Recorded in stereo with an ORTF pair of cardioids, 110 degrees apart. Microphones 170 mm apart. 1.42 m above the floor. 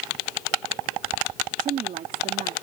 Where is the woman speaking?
50° right.